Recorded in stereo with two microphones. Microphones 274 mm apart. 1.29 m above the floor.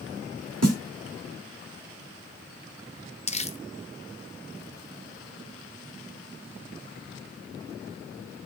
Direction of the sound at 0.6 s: 65° right (ahead or behind).